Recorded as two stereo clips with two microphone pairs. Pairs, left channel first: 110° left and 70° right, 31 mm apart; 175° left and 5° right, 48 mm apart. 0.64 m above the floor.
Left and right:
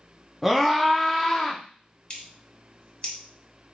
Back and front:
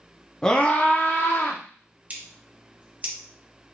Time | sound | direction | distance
0.4 | a scream | 140° right | 0.8 m
2.1 | scissors | 55° left | 1.0 m